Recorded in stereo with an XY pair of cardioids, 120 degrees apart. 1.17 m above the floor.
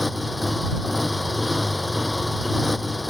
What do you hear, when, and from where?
0.0 s a motorcycle: 10° left